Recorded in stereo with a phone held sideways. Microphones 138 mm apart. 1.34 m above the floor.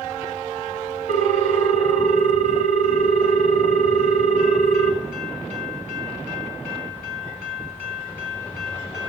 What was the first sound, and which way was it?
A ringtone, 70° right (ahead or behind).